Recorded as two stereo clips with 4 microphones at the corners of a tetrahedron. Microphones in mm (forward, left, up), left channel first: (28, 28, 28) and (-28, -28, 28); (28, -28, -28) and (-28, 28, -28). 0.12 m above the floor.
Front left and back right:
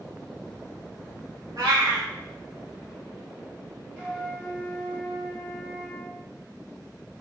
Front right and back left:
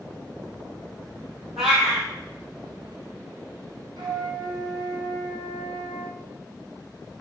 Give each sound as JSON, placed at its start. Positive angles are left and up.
{"t": 1.6, "sound": "a cat meowing", "azimuth_deg": -140, "distance_m": 1.1}
{"t": 4.0, "sound": "a flute", "azimuth_deg": 150, "distance_m": 1.1}